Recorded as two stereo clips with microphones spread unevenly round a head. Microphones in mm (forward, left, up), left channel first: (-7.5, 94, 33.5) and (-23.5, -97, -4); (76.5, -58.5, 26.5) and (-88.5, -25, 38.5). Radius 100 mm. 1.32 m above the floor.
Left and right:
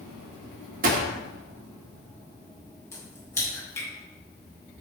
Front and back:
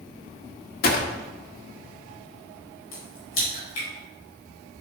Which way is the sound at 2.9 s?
10° left.